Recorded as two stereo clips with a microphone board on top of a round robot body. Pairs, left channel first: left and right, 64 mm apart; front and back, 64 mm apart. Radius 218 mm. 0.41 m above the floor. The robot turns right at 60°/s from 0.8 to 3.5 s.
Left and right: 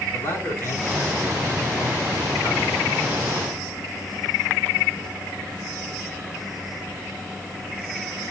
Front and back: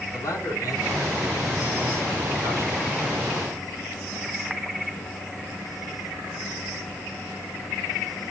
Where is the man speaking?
40° left, 7.5 m; by 2.9 s 170° left, 7.5 m.